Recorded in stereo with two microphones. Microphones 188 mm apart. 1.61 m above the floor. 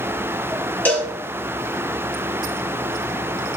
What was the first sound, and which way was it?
A cowbell, 10° left (ahead or behind).